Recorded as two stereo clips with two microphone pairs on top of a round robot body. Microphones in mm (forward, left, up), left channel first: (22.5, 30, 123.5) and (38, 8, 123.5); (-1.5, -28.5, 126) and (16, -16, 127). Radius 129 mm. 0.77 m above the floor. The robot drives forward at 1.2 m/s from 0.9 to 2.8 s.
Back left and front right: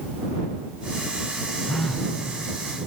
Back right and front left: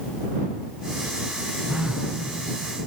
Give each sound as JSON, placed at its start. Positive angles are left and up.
{"t": 1.7, "sound": "a phone buzzing", "azimuth_deg": 60, "distance_m": 2.0}